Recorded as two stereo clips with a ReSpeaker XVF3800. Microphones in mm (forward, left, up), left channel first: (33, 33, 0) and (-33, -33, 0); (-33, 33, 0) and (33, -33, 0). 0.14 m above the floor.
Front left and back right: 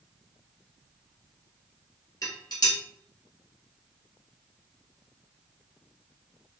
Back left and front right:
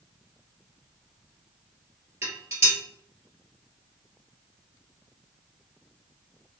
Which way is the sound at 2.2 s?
10° left.